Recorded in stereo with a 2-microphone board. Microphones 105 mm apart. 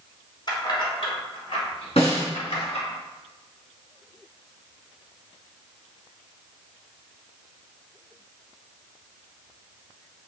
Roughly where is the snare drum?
Left.